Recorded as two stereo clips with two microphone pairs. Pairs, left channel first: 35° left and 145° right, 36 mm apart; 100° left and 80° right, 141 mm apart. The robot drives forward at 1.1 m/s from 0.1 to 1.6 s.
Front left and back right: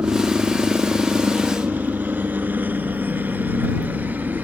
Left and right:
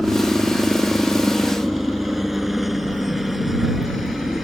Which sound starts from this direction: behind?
A helicopter, at 0.0 s.